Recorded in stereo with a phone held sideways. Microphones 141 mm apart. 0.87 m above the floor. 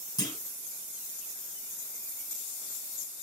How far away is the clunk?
About 3 m.